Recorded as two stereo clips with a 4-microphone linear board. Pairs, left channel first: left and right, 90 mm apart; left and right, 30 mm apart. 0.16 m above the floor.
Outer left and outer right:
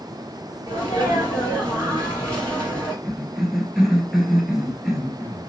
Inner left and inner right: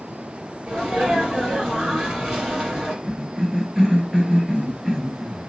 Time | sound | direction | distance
0.7 | a sneeze | 35° right (ahead or behind) | 3.5 m
3.0 | a cough | 5° right (ahead or behind) | 2.5 m